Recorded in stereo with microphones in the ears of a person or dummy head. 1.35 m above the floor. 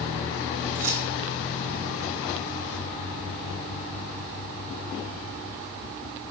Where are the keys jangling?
70° right (ahead or behind), 1.9 m.